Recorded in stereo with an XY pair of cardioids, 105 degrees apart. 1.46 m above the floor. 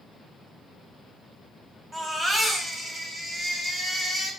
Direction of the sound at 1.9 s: 30° right.